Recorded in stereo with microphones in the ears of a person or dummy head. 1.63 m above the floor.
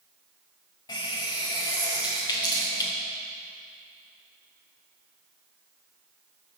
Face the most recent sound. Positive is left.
turn(degrees=20)  # may be behind; listen again after turning